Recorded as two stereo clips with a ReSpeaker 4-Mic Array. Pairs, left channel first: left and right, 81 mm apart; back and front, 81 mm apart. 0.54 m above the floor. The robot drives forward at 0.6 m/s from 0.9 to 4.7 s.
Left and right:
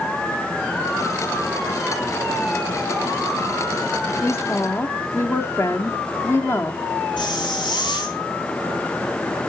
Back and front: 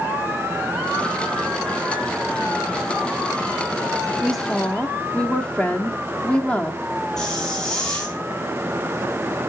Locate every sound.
4.2 s a woman speaking: 75° left, 0.8 m; by 6.8 s 115° left, 0.8 m
7.2 s a hiss: 95° left, 3.5 m